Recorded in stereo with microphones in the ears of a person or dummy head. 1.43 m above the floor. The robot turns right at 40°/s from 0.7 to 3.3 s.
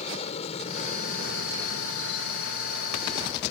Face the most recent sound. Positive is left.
turn(degrees=40)  # may be behind; listen again after turning